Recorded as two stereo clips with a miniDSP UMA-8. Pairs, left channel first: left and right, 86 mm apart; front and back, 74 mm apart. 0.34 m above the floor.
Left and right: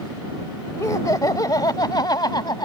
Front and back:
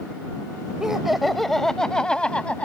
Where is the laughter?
100° left; by 2.7 s 70° left.